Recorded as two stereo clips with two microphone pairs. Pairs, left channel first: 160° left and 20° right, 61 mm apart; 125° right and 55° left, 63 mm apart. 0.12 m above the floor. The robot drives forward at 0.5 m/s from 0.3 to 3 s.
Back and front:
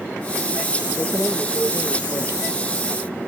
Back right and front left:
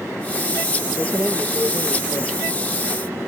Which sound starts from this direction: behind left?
Keys jangling, at 1.0 s.